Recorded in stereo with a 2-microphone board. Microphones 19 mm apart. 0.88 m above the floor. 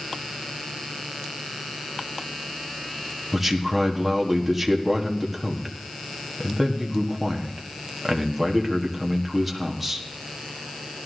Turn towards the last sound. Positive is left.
turn(degrees=-5)  # may be behind; listen again after turning